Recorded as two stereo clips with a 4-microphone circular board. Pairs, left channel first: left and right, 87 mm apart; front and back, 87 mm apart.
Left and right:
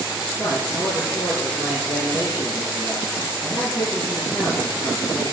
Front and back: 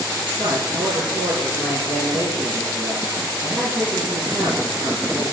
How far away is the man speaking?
About 5.5 m.